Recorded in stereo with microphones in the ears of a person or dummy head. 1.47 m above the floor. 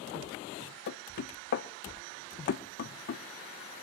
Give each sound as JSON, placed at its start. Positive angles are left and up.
{"t": 0.9, "sound": "knocking", "side_deg": 45, "distance_m": 0.7}